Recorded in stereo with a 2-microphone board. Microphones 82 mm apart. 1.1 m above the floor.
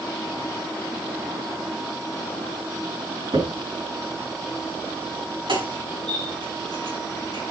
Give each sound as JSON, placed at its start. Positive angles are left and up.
{"t": 3.3, "sound": "a crack", "side_deg": -85, "distance_m": 5.0}